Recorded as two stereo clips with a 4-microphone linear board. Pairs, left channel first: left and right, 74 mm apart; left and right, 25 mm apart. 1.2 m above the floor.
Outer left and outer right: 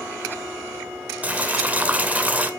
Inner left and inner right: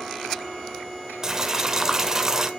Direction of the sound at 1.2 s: 20° right (ahead or behind).